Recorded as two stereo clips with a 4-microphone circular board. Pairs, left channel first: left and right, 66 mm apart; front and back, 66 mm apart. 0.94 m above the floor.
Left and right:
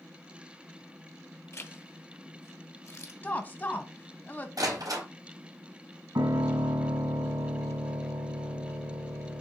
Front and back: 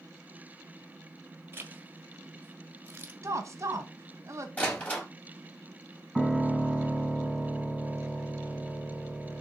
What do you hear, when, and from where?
1.5 s a zipper: 130° left, 1.2 m
3.2 s a woman speaking: 150° left, 1.3 m
4.6 s a door slam: 65° right, 3.5 m
6.2 s a piano: 85° right, 2.0 m